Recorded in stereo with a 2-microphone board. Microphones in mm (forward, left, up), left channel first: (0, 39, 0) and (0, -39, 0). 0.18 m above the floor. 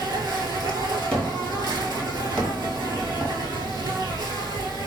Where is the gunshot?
15° left (ahead or behind), 0.9 m.